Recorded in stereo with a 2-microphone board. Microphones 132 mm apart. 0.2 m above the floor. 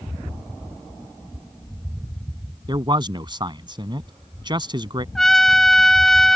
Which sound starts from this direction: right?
A man speaking, at 2.7 s.